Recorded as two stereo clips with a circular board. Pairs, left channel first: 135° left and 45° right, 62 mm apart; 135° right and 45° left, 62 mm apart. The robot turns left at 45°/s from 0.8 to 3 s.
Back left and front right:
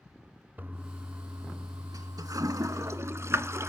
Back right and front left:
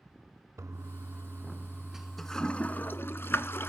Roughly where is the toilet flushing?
Ahead.